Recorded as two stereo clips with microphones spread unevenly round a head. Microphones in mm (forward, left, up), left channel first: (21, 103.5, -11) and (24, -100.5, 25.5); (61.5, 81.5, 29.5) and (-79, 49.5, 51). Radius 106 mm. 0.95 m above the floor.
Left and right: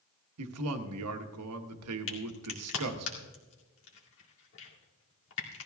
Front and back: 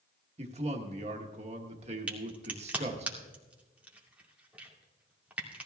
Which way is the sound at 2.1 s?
110° left.